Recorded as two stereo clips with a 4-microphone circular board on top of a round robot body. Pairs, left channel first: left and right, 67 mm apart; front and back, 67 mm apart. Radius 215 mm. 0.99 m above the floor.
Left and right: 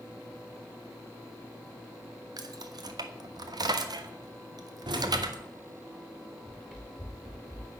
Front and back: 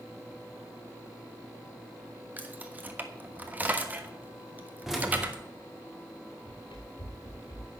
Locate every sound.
2.4 s keys jangling: 115° right, 1.4 m
4.9 s keys jangling: 95° right, 1.8 m
6.5 s running footsteps: 5° right, 4 m; by 7.7 s 15° right, 4 m